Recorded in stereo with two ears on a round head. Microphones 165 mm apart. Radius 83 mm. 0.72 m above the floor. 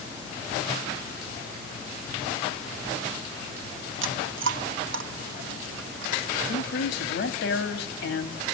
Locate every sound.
4.0 s chewing: 75° right (ahead or behind), 1.0 m
6.5 s a man speaking: 65° left (ahead or behind), 1.1 m